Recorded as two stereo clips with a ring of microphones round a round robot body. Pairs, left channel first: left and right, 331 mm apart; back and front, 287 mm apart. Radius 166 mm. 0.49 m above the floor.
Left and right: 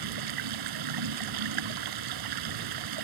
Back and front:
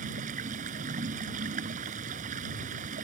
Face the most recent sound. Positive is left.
turn(degrees=-70)